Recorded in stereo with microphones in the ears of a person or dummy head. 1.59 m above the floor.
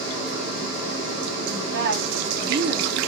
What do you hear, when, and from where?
1.5 s a woman speaking: 60° right (ahead or behind), 1.1 m